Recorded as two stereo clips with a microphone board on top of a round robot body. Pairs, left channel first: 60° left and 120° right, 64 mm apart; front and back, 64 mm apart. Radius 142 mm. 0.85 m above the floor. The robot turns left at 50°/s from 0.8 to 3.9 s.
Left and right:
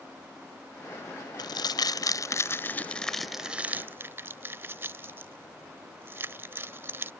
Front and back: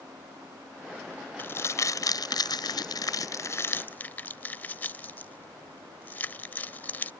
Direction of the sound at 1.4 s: 60° left.